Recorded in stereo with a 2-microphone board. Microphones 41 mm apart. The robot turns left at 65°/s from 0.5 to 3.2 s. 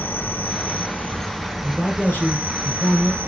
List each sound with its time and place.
0.0 s an insect: 70° left, 1.0 m; by 3.3 s 105° right, 1.0 m
1.6 s a man speaking: 145° left, 2.5 m; by 3.2 s 45° left, 2.5 m